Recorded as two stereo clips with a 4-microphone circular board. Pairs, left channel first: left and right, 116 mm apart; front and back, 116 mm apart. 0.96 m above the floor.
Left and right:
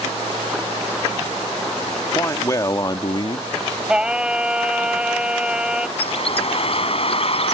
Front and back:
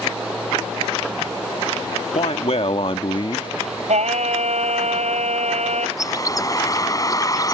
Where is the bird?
60° left.